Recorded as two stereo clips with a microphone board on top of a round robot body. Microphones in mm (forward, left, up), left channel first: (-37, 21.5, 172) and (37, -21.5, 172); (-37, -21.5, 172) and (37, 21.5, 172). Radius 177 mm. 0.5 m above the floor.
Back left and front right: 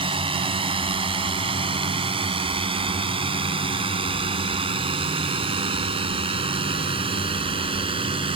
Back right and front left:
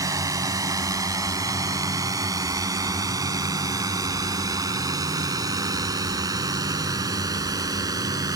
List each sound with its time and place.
0.0 s a drone: 20° right; by 8.4 s 15° right